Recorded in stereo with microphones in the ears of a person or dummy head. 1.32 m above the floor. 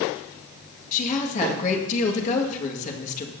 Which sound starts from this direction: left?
A woman speaking, at 0.9 s.